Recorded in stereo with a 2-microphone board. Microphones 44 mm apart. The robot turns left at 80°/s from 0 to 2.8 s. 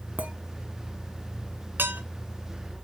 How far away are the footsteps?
I don't hear footsteps.